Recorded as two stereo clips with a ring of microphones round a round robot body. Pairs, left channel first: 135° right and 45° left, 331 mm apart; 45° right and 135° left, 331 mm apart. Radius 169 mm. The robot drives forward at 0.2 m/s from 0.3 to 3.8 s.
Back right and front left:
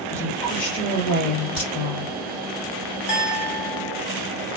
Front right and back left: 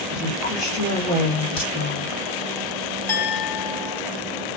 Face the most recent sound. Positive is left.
turn(degrees=-130)